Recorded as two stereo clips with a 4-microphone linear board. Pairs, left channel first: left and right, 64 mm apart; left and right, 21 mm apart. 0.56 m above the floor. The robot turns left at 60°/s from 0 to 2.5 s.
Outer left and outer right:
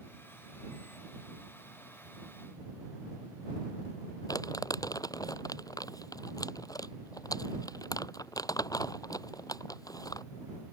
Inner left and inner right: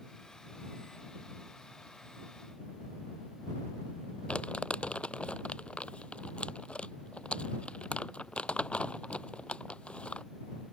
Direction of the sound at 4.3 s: 70° left (ahead or behind).